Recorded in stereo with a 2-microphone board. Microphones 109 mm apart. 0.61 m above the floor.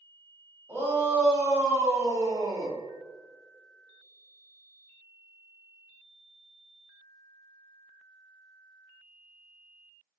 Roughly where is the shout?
Right.